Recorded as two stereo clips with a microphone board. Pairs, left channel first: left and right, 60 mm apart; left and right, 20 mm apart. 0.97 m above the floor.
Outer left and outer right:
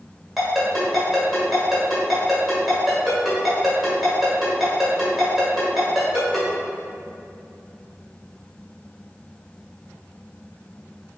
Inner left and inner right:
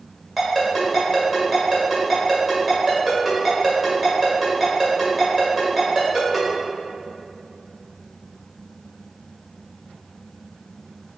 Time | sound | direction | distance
0.4 | a ringtone | centre (ahead or behind) | 1.5 m